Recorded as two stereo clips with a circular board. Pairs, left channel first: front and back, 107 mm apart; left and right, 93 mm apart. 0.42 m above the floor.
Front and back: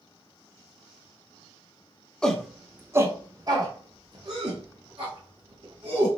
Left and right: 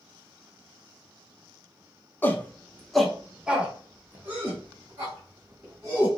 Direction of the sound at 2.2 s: 70° left.